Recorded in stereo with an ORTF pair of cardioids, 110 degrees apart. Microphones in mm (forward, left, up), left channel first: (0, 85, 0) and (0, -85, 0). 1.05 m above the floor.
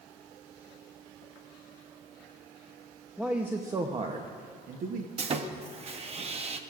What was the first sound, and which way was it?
A man speaking, 5° right.